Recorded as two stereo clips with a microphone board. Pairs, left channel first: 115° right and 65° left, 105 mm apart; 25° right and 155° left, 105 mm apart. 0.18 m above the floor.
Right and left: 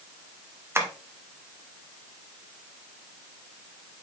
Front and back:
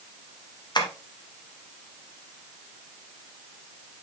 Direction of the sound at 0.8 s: 10° left.